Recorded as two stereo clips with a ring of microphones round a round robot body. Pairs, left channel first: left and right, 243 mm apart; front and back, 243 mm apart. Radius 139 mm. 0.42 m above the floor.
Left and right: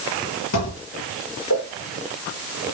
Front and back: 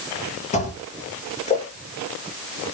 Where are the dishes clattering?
60° left, 6.5 m.